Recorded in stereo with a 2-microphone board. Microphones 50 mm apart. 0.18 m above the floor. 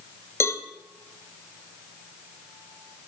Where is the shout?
No shout in this recording.